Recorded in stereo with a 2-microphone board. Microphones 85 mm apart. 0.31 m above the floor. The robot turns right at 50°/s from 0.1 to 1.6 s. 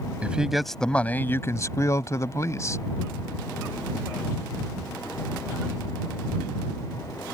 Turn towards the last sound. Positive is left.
turn(degrees=50)